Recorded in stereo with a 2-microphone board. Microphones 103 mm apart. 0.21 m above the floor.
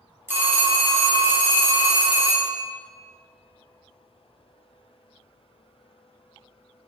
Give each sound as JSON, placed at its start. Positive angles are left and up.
{"t": 0.3, "sound": "a phone ringing", "side_deg": -25, "distance_m": 0.9}